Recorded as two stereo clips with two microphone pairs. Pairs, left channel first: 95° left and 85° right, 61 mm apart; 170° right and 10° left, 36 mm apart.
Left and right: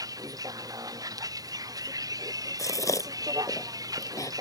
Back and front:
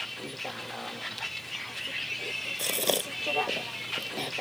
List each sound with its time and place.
0.0 s a vehicle: 85° right; by 4.4 s 80° right
2.6 s a gasp: 100° left